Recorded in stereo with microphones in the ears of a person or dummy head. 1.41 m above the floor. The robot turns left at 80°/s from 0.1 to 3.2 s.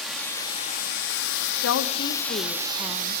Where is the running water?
175° right, 1.4 m; by 3.2 s 65° right, 1.4 m.